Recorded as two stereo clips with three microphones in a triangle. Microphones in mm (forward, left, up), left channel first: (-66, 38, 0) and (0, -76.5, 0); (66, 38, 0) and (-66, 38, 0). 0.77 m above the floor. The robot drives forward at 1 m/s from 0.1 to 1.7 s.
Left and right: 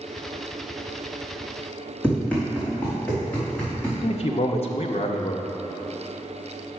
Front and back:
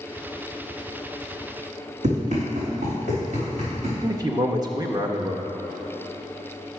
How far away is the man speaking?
About 0.5 m.